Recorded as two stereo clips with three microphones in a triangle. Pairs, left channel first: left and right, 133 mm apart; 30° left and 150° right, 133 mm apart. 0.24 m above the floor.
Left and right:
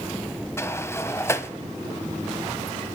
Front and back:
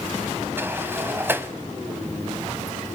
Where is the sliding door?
145° left, 0.9 m.